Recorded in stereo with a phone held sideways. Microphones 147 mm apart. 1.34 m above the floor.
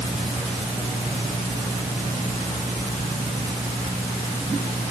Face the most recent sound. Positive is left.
No sound to turn to.